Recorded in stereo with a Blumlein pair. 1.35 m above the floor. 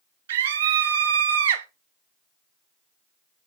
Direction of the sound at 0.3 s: 60° right.